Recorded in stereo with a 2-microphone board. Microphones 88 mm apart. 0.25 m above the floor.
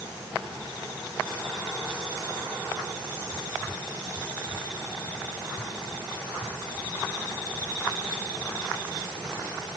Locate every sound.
Only background noise.